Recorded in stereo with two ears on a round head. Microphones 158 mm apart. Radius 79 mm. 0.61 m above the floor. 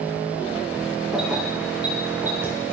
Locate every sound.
1.1 s keys jangling: 5° right (ahead or behind), 5 m; by 2.5 s 15° right (ahead or behind), 4.5 m